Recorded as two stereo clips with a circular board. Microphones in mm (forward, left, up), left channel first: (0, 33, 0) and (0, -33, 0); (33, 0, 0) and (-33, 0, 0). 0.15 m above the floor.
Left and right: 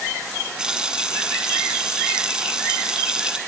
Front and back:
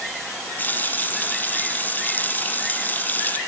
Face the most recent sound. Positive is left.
turn(degrees=-25)